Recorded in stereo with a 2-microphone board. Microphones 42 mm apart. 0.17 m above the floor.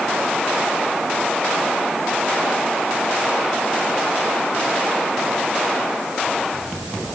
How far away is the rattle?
No rattle in this recording.